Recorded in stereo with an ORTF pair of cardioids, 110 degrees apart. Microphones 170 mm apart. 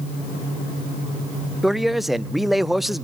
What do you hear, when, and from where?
1.6 s a man speaking: straight ahead, 0.5 m